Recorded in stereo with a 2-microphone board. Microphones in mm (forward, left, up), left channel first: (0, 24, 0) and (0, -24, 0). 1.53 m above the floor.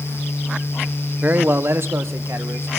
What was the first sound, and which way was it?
A man speaking, 35° right (ahead or behind).